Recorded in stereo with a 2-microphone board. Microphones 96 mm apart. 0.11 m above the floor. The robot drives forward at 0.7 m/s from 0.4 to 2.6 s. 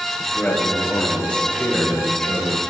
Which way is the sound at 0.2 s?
10° left (ahead or behind).